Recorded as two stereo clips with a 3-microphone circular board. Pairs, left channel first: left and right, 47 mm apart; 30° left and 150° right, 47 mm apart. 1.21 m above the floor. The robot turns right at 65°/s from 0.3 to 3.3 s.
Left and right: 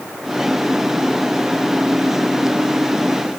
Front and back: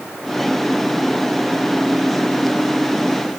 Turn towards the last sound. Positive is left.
No sound to turn to.